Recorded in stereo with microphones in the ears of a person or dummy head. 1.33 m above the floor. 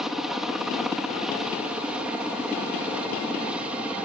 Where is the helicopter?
Centre (ahead or behind); by 4.0 s 5° right (ahead or behind).